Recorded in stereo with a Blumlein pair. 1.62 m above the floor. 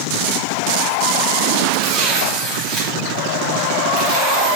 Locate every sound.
1.7 s tearing paper: 15° right, 2.5 m